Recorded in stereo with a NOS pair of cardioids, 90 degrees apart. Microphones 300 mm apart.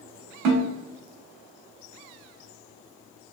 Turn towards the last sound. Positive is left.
turn(degrees=-70)